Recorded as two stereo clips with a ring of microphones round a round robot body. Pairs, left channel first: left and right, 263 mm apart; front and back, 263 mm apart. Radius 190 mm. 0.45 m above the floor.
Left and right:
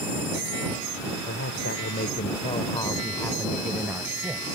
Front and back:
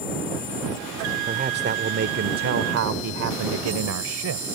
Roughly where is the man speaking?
Behind left.